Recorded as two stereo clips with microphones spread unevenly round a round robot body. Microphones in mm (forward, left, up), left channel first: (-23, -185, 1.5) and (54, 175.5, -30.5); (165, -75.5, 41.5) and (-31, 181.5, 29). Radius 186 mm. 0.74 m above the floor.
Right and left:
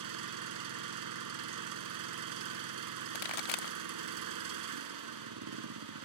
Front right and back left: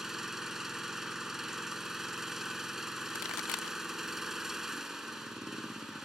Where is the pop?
90° right.